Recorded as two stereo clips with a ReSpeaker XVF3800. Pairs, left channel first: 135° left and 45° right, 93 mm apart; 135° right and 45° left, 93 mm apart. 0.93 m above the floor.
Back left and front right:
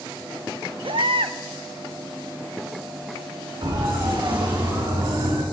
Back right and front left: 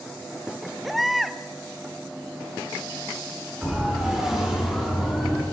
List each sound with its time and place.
0.8 s a baby crying: 45° right, 0.5 m
3.6 s a siren: 35° right, 4 m; by 5.4 s 40° right, 4.5 m